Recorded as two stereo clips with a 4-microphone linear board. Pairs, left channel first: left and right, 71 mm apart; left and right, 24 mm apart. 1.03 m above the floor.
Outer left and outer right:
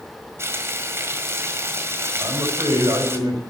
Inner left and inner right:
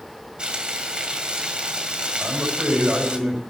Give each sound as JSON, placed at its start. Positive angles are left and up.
{"t": 0.4, "sound": "frying", "side_deg": -40, "distance_m": 1.8}
{"t": 2.2, "sound": "a man speaking", "side_deg": -70, "distance_m": 5.5}